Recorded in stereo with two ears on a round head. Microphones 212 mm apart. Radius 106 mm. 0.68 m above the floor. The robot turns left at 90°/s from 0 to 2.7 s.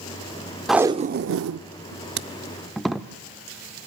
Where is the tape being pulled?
Centre (ahead or behind), 0.5 m.